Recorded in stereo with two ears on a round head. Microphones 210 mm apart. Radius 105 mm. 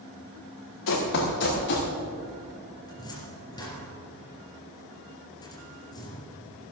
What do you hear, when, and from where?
0.9 s running footsteps: 60° left (ahead or behind), 4 m; by 1.9 s 50° left (ahead or behind), 4.5 m
2.9 s a cupboard door: 20° left (ahead or behind), 4 m